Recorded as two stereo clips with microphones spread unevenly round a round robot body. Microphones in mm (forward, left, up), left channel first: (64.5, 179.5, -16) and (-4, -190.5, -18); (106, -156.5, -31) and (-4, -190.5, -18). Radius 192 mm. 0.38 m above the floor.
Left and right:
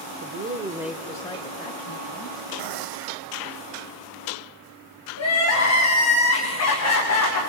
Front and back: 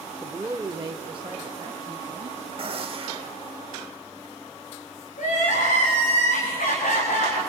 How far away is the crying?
About 6 m.